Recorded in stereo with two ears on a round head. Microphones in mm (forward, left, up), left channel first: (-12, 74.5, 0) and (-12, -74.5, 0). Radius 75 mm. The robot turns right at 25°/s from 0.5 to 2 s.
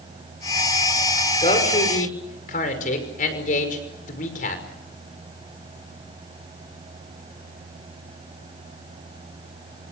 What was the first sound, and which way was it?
A man speaking, 35° left (ahead or behind).